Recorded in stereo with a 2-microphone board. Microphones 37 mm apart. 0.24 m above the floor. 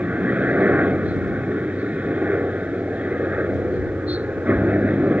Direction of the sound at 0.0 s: 35° right (ahead or behind).